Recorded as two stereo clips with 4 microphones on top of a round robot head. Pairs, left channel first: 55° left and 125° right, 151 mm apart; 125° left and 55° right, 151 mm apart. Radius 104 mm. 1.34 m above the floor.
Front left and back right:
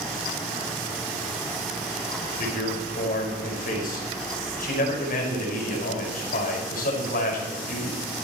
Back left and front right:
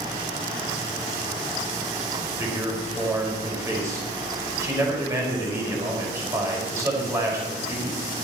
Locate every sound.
2.2 s a man speaking: 20° left, 5 m